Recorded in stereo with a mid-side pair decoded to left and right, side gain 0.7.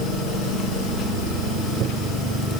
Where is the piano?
No piano in this recording.